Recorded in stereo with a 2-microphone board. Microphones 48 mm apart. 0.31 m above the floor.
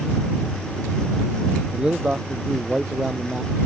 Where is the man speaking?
20° right (ahead or behind).